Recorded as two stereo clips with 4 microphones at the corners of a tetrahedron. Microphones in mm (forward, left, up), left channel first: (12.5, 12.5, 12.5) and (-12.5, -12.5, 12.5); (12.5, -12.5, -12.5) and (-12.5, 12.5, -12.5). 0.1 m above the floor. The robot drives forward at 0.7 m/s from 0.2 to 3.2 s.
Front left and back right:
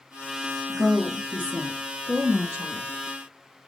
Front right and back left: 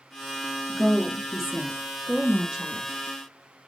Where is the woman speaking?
110° right, 1.2 m; by 3.7 s 165° right, 2 m.